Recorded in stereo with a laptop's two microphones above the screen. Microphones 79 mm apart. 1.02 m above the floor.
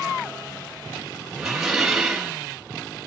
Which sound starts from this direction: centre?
Dishes clattering, at 1.4 s.